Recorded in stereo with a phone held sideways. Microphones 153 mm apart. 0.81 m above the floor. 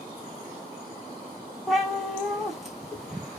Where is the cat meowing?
Centre (ahead or behind), 1.5 m.